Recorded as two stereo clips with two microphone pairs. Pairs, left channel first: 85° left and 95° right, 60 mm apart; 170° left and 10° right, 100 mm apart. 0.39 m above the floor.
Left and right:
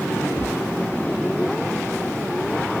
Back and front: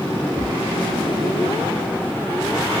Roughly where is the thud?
Left.